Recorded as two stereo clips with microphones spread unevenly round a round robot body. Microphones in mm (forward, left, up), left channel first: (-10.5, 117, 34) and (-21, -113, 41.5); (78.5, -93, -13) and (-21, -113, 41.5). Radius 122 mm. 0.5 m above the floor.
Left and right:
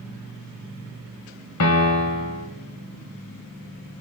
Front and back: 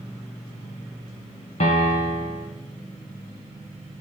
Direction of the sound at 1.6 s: 60° left.